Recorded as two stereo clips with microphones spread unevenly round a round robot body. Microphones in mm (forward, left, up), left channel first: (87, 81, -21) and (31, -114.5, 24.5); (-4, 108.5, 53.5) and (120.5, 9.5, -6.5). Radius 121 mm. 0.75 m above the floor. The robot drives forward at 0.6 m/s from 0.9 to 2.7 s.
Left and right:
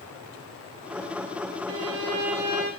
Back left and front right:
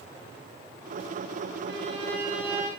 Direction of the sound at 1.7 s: 130° right.